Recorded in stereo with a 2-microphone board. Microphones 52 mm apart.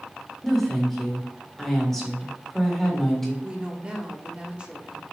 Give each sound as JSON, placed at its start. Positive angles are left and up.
{"t": 0.4, "sound": "a woman speaking", "side_deg": 5, "distance_m": 1.5}
{"t": 3.4, "sound": "a woman speaking", "side_deg": -25, "distance_m": 0.8}